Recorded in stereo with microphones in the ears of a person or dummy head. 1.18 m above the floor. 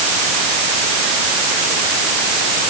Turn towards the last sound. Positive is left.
No sound to turn to.